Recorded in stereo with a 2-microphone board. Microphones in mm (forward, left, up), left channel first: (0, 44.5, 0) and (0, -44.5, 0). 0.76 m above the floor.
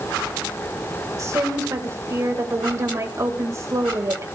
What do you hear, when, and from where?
1.2 s a woman speaking: 35° right (ahead or behind), 3.5 m